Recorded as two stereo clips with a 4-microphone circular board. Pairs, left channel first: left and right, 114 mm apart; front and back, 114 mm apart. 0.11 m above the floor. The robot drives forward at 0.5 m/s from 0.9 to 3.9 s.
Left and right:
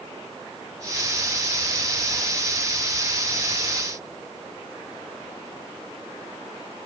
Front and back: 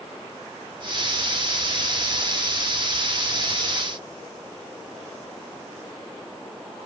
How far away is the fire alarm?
I don't hear a fire alarm.